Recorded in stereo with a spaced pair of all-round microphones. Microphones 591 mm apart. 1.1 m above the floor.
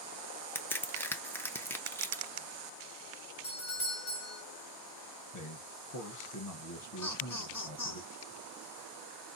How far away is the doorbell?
About 1.5 m.